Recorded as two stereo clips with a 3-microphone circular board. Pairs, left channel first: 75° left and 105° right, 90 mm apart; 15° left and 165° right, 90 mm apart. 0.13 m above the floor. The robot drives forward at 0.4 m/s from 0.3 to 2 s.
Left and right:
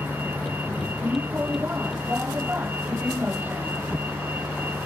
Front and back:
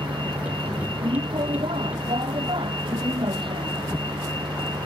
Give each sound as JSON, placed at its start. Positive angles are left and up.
{"t": 0.0, "sound": "a vehicle", "azimuth_deg": -175}